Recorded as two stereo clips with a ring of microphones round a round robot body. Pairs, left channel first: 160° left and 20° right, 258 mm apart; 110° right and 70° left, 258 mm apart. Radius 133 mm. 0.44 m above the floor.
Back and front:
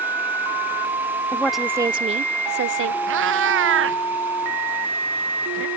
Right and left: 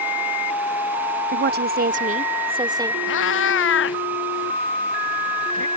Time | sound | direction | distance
1.3 | a woman speaking | 80° left | ?
3.1 | a cat meowing | 65° right | ?